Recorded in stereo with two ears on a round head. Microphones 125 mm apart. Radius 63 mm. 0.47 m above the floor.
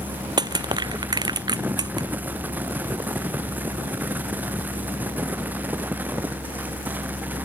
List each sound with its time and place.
0.4 s crushing: 30° right (ahead or behind)